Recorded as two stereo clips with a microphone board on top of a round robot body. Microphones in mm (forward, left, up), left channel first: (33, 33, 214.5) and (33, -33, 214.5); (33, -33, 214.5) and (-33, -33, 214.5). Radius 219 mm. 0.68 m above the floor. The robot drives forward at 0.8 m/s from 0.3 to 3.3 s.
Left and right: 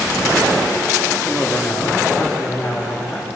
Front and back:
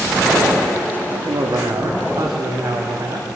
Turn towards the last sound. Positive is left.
turn(degrees=175)